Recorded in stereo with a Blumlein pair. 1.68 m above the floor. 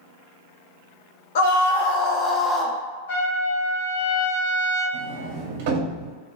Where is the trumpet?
60° left, 1.1 m.